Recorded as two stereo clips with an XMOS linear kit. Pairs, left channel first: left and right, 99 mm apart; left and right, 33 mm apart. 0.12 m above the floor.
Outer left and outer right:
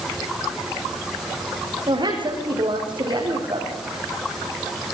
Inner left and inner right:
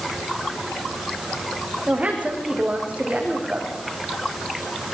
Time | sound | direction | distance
1.9 | a woman speaking | 55° right (ahead or behind) | 6 m